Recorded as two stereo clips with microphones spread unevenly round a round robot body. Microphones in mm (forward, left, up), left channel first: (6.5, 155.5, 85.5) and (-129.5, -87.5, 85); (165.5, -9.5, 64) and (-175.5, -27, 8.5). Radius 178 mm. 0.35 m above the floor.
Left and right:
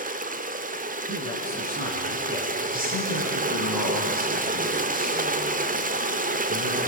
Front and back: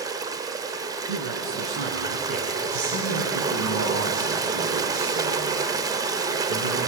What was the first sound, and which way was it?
Running water, 130° right.